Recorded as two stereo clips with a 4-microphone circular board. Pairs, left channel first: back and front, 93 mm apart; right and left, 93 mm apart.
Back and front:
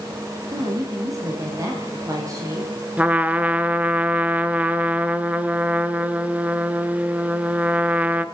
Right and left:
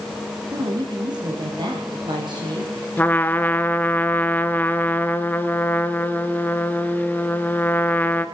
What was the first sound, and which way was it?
A woman speaking, 55° left.